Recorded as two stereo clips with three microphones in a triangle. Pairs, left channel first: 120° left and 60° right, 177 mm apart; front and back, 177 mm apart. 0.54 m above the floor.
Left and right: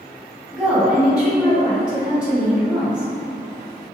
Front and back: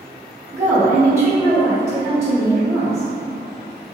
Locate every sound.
0.5 s a woman speaking: 135° right, 0.7 m